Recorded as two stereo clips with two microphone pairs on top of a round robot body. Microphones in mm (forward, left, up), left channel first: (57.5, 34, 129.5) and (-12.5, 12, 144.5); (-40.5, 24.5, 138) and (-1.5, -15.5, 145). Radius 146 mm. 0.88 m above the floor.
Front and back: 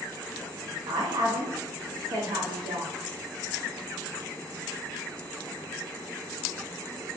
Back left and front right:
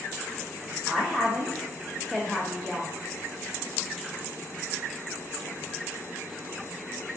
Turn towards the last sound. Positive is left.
turn(degrees=-145)